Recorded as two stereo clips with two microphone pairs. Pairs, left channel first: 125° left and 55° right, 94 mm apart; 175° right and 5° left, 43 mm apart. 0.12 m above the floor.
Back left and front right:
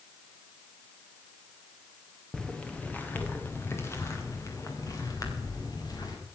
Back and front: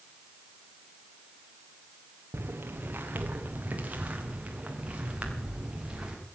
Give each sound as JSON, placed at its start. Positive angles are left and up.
{"t": 2.3, "sound": "footsteps", "azimuth_deg": 45, "distance_m": 2.0}